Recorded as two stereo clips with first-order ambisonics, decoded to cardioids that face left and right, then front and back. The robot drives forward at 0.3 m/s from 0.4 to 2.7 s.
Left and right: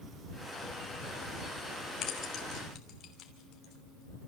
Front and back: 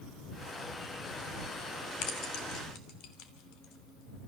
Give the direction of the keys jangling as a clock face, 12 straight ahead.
11 o'clock.